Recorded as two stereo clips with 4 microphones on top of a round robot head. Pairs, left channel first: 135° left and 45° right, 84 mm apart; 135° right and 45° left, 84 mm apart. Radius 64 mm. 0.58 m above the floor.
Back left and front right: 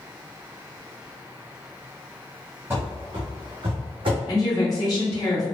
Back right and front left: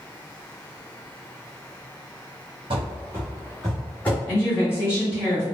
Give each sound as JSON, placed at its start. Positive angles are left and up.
{"t": 2.7, "sound": "running footsteps", "azimuth_deg": 20, "distance_m": 0.8}
{"t": 4.3, "sound": "a woman speaking", "azimuth_deg": 165, "distance_m": 1.8}